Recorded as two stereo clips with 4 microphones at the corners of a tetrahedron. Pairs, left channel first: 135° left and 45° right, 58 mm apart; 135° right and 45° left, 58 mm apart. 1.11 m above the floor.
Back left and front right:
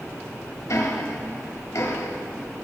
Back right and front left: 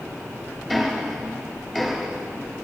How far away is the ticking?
About 2 m.